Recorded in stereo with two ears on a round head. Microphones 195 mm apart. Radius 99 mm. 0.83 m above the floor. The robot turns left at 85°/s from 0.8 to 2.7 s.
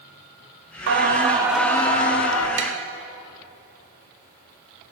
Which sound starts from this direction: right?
Tapping, at 2.6 s.